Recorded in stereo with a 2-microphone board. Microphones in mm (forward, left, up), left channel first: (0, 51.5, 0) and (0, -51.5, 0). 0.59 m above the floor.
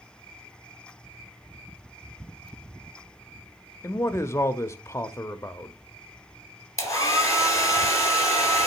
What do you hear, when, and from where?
3.8 s a man speaking: 25° left (ahead or behind), 0.6 m
6.8 s a hair dryer: 30° left (ahead or behind), 2 m